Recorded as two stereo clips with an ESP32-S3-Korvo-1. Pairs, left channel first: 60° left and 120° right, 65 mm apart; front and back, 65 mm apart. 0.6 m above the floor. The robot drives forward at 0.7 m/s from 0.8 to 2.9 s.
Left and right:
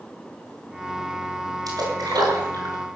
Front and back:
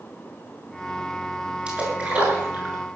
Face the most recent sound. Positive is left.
turn(degrees=-115)